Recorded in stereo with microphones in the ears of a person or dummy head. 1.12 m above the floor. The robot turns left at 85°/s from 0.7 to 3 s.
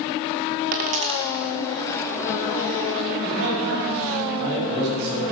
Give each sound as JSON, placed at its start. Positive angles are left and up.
{"t": 0.7, "sound": "a dropped coin", "side_deg": -40, "distance_m": 0.8}
{"t": 3.2, "sound": "a man speaking", "side_deg": -60, "distance_m": 5.5}